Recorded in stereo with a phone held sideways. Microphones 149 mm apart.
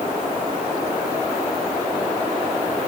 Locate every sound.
Only background noise.